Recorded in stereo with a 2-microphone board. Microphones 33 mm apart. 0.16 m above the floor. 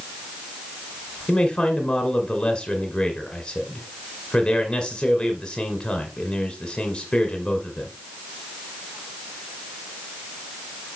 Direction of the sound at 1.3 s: 25° left (ahead or behind).